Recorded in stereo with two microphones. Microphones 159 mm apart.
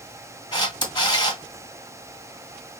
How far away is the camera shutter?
About 1.6 m.